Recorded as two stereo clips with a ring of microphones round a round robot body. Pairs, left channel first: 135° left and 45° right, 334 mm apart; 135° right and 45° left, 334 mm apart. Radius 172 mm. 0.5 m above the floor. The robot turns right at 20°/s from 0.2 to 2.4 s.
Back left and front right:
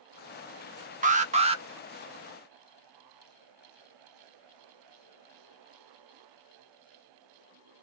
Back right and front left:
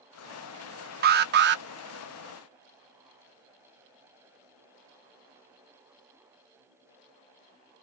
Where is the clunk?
No clunk in this recording.